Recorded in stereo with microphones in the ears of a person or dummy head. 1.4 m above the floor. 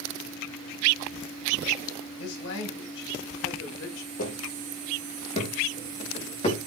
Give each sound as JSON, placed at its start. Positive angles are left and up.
{"t": 2.2, "sound": "a man speaking", "side_deg": 70, "distance_m": 6.5}
{"t": 4.2, "sound": "footsteps", "side_deg": 50, "distance_m": 3.5}